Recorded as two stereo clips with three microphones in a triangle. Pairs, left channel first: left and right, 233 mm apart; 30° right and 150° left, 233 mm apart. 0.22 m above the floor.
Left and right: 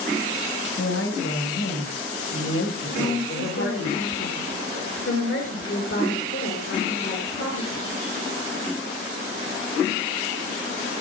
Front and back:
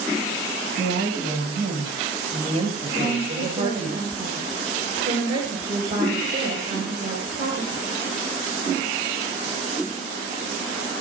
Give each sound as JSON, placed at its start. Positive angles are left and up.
{"t": 0.8, "sound": "a woman speaking", "azimuth_deg": 100, "distance_m": 5.0}
{"t": 2.9, "sound": "a woman speaking", "azimuth_deg": 90, "distance_m": 4.0}